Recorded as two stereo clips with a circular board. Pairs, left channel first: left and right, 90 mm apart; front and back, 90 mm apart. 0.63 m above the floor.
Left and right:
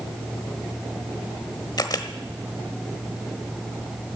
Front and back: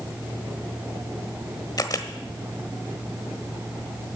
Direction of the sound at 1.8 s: 45° left.